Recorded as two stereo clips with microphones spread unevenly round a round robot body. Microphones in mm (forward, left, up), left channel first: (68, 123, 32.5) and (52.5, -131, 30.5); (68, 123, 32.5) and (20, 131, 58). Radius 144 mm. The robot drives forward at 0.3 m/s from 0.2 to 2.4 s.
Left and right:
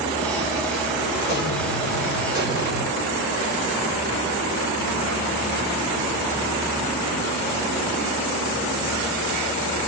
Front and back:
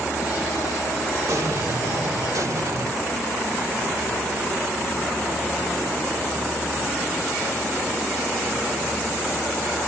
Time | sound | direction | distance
1.3 | an explosion | 135° left | 2.5 m